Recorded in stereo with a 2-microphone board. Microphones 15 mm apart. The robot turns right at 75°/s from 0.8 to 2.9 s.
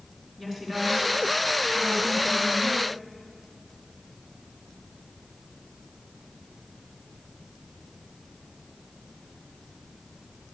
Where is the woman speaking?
155° right, 3 m; by 2.8 s 5° right, 3 m.